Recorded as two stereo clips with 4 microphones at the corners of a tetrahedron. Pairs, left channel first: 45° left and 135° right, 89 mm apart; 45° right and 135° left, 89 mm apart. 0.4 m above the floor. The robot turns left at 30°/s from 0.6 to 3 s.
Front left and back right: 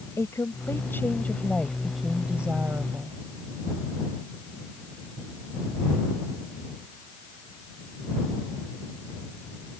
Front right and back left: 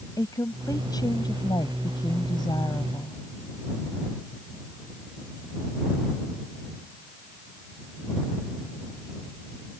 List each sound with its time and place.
0.2 s a woman speaking: 5° right; by 3.2 s 80° right